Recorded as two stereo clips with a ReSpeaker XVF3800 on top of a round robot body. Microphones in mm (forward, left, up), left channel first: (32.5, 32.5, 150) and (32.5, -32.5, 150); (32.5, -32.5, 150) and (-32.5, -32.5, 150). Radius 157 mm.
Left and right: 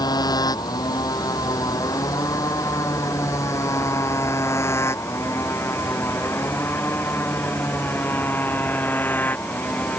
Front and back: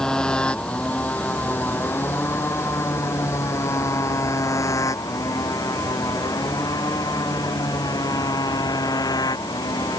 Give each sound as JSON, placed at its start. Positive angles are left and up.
{"t": 0.0, "sound": "a motorcycle", "azimuth_deg": 80}